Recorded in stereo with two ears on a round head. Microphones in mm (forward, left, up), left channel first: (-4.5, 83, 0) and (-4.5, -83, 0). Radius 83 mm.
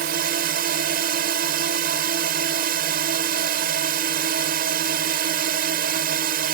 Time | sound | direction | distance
0.0 | a drone | 50° right (ahead or behind) | ?